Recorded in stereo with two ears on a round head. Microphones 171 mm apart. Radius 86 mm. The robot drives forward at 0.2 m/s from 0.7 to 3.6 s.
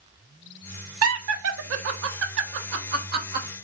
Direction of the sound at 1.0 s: 80° right.